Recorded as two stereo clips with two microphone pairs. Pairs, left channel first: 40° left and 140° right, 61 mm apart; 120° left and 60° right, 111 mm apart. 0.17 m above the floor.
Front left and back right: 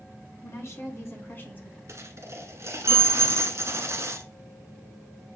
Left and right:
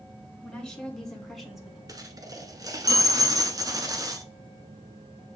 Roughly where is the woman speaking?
Ahead left.